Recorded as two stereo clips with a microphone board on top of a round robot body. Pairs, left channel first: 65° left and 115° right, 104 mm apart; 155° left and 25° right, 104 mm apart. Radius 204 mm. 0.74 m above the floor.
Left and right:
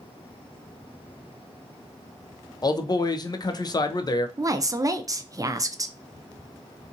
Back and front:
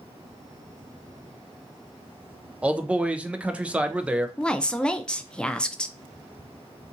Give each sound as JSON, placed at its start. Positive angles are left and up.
{"t": 2.6, "sound": "a man speaking", "azimuth_deg": 50, "distance_m": 0.6}
{"t": 4.4, "sound": "a woman speaking", "azimuth_deg": -130, "distance_m": 0.5}